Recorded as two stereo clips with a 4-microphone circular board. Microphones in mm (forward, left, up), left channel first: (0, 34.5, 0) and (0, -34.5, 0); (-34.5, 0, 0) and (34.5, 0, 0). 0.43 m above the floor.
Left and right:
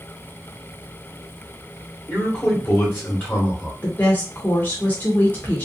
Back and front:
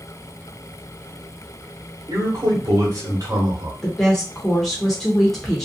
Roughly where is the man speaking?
Ahead left.